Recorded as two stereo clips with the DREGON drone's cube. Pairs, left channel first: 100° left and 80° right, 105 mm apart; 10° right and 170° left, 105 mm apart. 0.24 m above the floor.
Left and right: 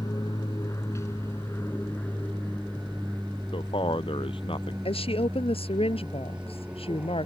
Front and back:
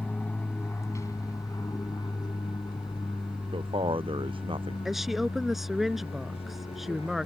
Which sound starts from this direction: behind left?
A man speaking, at 3.5 s.